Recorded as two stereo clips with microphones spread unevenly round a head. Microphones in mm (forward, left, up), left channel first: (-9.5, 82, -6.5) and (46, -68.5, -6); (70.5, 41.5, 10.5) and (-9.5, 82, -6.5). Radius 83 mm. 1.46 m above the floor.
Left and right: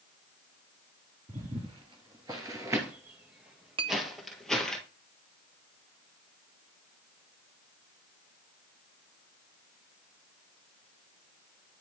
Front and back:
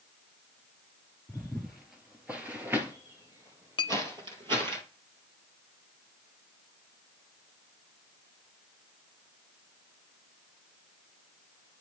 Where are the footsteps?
90° right, 1.7 m; by 4.8 s 165° right, 2 m.